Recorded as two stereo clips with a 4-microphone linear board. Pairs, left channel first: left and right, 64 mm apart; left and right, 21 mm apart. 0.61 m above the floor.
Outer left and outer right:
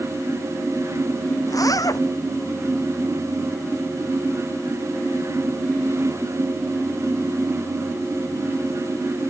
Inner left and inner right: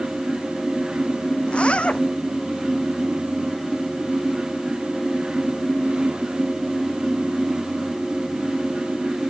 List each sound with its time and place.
1.5 s a zipper: 65° left (ahead or behind)